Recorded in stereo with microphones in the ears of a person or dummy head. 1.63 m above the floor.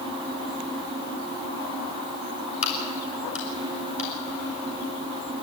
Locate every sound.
2.6 s a crack: 35° left (ahead or behind), 3 m